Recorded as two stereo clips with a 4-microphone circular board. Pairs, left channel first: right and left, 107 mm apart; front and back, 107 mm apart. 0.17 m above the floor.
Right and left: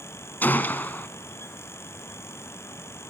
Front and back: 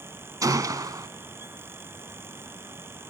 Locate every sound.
0.4 s a gunshot: 150° right, 0.9 m